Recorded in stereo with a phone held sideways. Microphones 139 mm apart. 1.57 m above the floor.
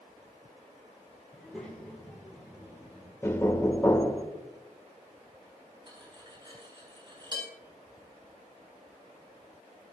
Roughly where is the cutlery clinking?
Right.